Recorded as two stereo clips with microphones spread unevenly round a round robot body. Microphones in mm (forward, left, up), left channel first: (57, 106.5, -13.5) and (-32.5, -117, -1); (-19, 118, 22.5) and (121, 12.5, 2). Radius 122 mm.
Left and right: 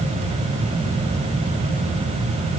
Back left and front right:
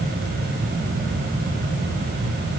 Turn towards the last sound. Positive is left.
No sound to turn to.